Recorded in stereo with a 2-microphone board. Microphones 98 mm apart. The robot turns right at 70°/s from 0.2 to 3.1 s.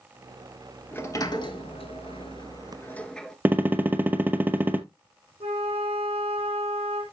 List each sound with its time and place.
0.9 s a sliding door: 20° left (ahead or behind), 0.9 m; by 3.4 s 5° left (ahead or behind), 0.9 m
3.5 s a gunshot: 20° right (ahead or behind), 0.7 m
5.4 s a flute: 70° right (ahead or behind), 3 m